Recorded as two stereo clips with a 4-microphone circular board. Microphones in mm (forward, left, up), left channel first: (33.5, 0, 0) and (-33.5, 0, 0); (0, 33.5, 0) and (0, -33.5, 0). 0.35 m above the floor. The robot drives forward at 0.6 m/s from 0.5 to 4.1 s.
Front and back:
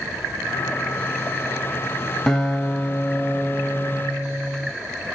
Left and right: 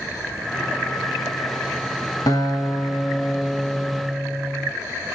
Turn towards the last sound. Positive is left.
turn(degrees=125)